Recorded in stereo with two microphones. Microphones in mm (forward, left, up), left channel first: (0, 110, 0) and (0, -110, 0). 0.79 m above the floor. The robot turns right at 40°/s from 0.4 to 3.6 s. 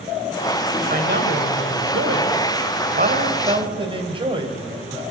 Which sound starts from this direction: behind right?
A man speaking, at 0.9 s.